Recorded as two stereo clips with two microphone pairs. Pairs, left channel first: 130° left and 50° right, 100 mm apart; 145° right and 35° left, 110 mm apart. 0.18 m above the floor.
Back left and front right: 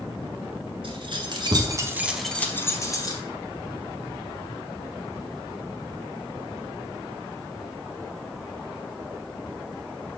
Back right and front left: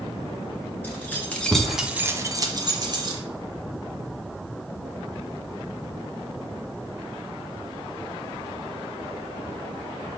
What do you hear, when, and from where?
0.8 s keys jangling: 75° right, 2.0 m; by 3.2 s 80° left, 1.9 m